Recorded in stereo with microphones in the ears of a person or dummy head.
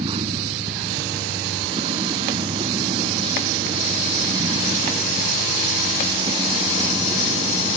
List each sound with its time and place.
0.0 s a vehicle: 30° right (ahead or behind); by 7.8 s 25° right (ahead or behind)